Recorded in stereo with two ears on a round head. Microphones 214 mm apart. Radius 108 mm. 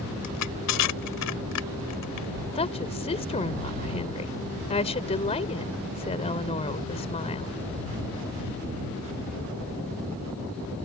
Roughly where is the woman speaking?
Left.